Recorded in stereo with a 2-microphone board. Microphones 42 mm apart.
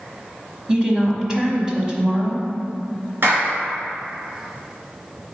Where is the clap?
60° right (ahead or behind), 1.9 m.